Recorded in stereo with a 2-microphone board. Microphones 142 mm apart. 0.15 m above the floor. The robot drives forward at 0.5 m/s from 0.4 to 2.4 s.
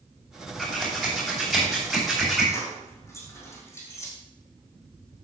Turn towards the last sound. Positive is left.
turn(degrees=20)  # may be behind; listen again after turning